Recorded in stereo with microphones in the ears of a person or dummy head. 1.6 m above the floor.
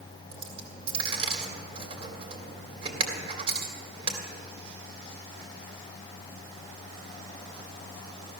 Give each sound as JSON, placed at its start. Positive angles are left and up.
{"t": 0.3, "sound": "a dropped coin", "side_deg": -35, "distance_m": 2.5}